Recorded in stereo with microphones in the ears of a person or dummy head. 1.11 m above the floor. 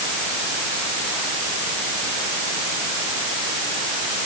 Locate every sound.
Only background noise.